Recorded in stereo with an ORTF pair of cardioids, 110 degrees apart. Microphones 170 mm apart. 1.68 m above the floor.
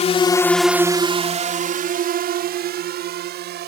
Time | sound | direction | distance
0.0 | a drone | 40° left | ?